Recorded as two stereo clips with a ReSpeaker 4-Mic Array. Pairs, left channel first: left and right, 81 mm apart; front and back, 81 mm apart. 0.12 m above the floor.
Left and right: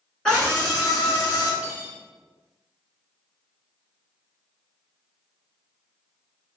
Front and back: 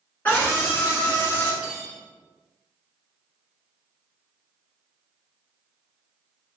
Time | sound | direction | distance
0.2 | a scream | 20° left | 1.7 m
1.6 | cutlery clinking | 135° right | 0.7 m